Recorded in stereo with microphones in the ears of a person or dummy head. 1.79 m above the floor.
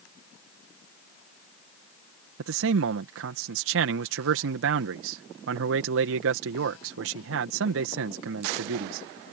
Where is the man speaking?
75° right (ahead or behind).